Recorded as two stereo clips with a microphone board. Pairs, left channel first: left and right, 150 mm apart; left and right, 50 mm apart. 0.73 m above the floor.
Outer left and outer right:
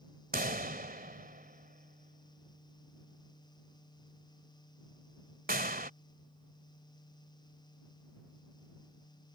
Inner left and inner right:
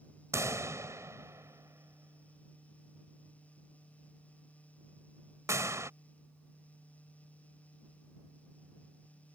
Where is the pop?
80° right.